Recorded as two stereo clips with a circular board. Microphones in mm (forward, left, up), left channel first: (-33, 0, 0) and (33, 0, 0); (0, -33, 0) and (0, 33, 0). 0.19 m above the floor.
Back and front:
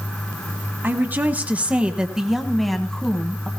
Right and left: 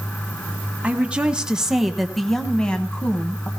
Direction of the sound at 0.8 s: 35° left.